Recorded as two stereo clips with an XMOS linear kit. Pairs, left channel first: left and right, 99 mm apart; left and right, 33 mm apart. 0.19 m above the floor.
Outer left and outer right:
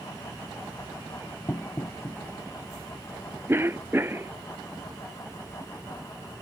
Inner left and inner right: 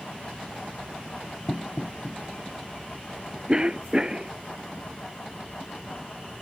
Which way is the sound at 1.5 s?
25° left (ahead or behind).